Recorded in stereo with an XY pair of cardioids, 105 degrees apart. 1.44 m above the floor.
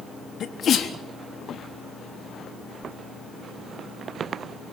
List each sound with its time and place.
0.4 s a sneeze: 55° left, 3.5 m